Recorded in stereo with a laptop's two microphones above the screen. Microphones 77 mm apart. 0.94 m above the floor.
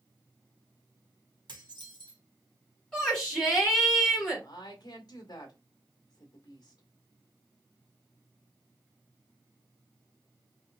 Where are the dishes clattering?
75° right (ahead or behind), 1.8 m.